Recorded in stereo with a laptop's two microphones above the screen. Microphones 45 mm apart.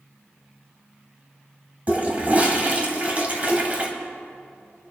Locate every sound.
1.9 s a toilet flushing: 35° right (ahead or behind), 2 m